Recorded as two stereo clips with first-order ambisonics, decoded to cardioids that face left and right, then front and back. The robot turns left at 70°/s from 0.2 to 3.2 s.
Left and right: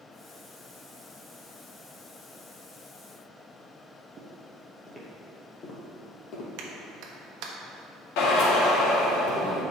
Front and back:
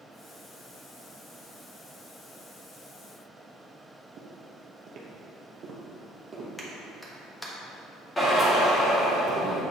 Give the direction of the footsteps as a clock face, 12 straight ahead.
5 o'clock.